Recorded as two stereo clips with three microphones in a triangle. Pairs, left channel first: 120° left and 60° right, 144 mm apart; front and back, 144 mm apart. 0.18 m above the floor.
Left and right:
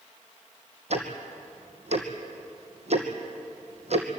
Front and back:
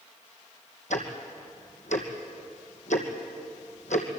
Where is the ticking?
25° right, 2.5 m.